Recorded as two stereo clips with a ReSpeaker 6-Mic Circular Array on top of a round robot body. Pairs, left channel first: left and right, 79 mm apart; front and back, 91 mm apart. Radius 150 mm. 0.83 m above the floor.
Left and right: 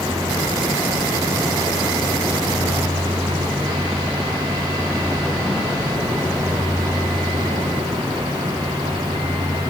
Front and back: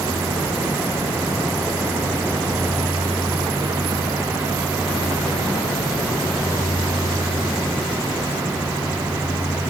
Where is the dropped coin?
I don't hear a dropped coin.